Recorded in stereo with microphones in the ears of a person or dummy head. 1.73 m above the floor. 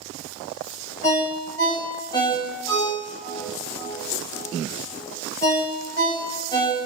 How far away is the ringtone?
About 1.5 m.